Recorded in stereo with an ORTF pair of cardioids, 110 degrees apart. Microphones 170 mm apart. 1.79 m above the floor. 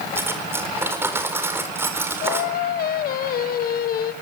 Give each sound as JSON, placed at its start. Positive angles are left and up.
{"t": 0.1, "sound": "cutlery clinking", "azimuth_deg": -15, "distance_m": 4.5}
{"t": 2.2, "sound": "singing", "azimuth_deg": 65, "distance_m": 1.4}